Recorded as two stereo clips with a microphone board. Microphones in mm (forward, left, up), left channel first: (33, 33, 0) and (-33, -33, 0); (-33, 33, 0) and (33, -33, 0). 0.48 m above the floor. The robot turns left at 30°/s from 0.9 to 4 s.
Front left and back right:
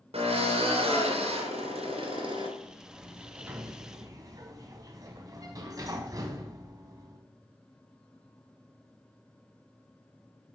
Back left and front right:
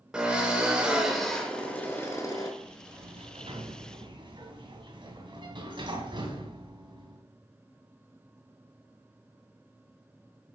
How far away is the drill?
About 2.5 m.